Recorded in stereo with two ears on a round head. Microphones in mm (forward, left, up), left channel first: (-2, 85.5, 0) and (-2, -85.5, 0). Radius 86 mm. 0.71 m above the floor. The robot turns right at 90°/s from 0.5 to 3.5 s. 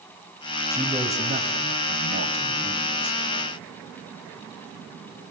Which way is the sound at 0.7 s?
160° left.